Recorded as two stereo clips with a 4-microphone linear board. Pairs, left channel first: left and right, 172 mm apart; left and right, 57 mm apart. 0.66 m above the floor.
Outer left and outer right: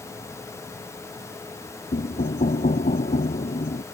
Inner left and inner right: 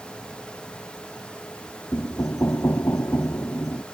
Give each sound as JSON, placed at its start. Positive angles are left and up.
{"t": 1.9, "sound": "knocking", "side_deg": 55}